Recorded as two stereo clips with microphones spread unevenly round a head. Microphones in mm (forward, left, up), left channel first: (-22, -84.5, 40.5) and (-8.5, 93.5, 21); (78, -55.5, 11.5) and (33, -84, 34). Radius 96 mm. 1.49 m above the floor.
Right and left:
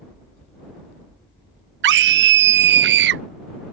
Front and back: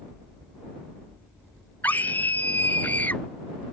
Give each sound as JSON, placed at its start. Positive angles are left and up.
{"t": 1.8, "sound": "a scream", "azimuth_deg": 115}